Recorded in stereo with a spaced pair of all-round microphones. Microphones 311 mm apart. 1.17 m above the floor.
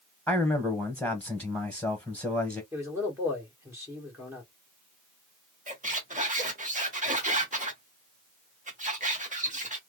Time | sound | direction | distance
0.3 | a man speaking | 10° left (ahead or behind) | 1.1 m
2.7 | a man speaking | 10° right (ahead or behind) | 1.8 m
5.7 | a squeak | 25° right (ahead or behind) | 1.1 m